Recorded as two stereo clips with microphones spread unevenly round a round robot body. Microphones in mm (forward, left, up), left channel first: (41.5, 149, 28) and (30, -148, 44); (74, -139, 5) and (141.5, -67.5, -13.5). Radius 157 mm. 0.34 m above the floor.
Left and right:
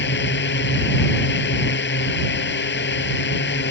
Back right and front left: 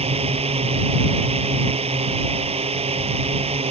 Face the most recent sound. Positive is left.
turn(degrees=35)